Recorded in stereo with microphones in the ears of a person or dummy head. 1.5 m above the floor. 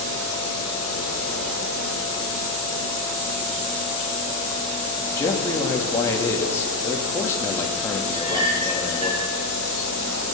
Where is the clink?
30° right (ahead or behind), 7.5 m.